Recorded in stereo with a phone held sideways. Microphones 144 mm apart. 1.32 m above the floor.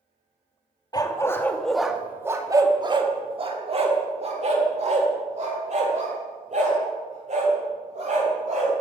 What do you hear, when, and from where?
0.9 s a dog barking: 30° left (ahead or behind), 0.8 m; by 8.8 s 60° right (ahead or behind), 4 m